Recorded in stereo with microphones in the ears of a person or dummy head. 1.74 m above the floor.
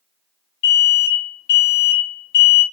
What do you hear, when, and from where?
0.6 s an alarm: 60° left (ahead or behind), 1.1 m